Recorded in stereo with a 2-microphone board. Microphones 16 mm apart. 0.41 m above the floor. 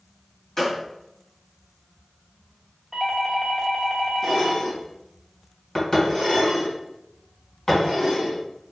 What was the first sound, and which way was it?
A gunshot, 30° left (ahead or behind).